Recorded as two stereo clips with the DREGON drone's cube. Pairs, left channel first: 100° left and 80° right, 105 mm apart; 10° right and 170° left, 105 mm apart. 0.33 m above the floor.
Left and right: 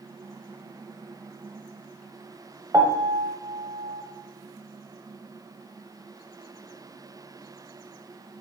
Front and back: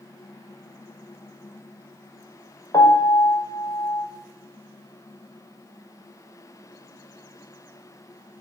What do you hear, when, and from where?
2.7 s a piano: 35° right, 1.2 m